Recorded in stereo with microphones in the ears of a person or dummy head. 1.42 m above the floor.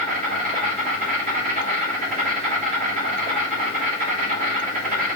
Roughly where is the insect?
Right.